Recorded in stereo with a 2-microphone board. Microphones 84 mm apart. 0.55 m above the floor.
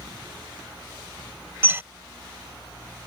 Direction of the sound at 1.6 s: 25° right (ahead or behind).